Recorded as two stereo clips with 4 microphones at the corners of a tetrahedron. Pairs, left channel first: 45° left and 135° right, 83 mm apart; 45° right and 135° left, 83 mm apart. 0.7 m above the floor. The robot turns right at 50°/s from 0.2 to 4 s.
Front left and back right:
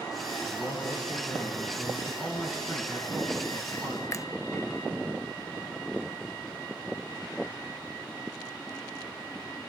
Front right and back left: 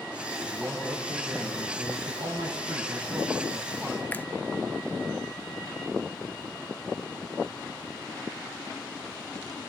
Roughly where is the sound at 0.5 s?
Ahead left.